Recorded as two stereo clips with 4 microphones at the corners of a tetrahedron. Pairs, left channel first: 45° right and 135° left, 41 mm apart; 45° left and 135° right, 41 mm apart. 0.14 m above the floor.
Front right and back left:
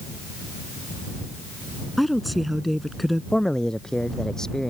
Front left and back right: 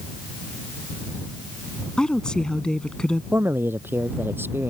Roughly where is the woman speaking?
Ahead left.